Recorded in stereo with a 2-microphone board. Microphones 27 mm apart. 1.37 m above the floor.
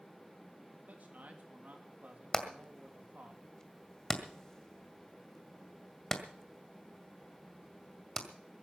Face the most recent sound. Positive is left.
turn(degrees=20)  # may be behind; listen again after turning